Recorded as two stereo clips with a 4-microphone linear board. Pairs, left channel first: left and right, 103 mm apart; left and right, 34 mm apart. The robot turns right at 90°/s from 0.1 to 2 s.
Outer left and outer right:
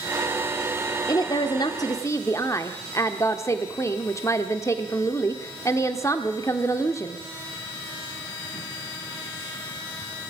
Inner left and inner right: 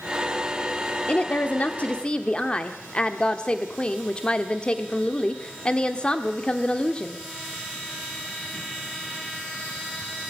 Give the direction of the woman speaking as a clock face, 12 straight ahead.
10 o'clock.